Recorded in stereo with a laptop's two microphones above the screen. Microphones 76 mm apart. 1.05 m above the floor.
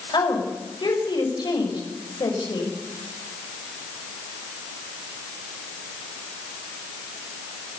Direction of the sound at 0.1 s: 75° left (ahead or behind).